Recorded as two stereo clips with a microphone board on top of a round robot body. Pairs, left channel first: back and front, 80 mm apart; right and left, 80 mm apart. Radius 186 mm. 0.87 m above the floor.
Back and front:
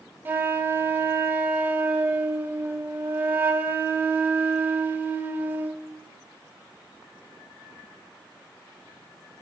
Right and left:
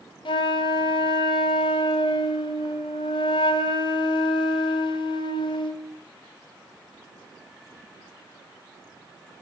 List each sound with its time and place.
0.2 s a flute: 65° right, 0.6 m